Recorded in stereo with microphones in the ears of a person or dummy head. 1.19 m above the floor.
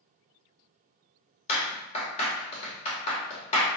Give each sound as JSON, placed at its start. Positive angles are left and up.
{"t": 1.5, "sound": "a clap", "side_deg": 35, "distance_m": 2.0}